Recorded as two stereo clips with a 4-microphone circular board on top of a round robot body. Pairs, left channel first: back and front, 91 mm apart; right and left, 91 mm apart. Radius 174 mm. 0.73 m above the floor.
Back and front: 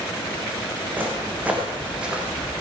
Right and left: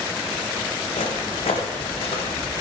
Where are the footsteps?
75° right, 4 m; by 2.6 s 85° right, 1.7 m.